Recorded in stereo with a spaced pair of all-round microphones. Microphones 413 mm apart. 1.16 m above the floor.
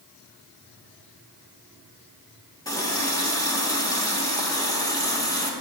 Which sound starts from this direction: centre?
A running tap, at 2.6 s.